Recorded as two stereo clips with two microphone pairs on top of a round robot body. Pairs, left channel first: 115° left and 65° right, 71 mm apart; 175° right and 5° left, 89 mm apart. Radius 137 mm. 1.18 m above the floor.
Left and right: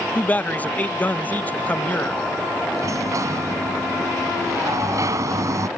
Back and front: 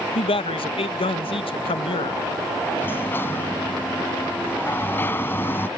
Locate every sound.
0.1 s a man speaking: straight behind
2.8 s a sliding door: 110° right